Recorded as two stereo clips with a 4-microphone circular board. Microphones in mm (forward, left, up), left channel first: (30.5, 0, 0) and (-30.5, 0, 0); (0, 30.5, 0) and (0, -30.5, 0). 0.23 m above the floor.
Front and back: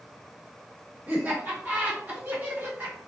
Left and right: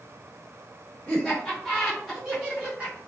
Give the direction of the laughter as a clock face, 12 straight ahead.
7 o'clock.